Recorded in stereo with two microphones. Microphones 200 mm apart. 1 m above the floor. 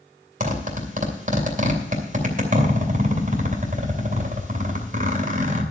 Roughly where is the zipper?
Right.